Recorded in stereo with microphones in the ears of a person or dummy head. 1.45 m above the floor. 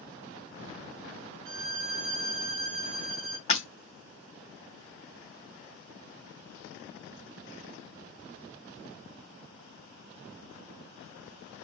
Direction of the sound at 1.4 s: 65° right (ahead or behind).